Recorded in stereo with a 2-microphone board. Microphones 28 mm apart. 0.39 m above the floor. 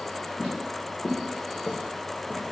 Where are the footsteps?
15° left (ahead or behind), 1.5 m; by 2.4 s 40° right (ahead or behind), 0.9 m.